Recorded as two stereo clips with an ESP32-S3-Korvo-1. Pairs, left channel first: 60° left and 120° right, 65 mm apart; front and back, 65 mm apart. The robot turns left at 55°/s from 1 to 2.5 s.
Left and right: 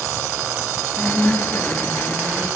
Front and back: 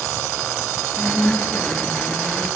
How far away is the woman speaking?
About 1.5 m.